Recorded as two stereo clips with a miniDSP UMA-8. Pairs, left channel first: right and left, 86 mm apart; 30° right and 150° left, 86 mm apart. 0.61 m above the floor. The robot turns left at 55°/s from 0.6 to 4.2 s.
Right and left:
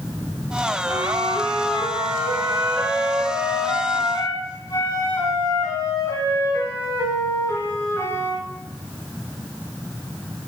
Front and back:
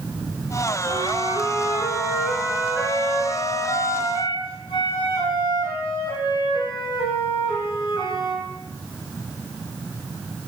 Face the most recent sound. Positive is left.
turn(degrees=-45)